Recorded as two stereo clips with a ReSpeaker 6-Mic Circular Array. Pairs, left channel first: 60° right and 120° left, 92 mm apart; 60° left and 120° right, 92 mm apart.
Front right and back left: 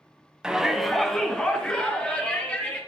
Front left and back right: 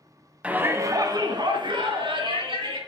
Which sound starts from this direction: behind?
A shout, at 0.4 s.